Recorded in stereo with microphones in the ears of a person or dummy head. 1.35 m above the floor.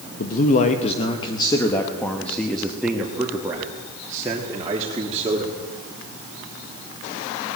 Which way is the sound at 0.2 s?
50° left (ahead or behind).